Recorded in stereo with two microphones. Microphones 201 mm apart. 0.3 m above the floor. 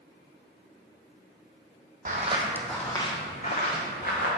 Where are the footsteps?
45° right (ahead or behind), 0.6 m; by 4.3 s 50° left (ahead or behind), 1.5 m.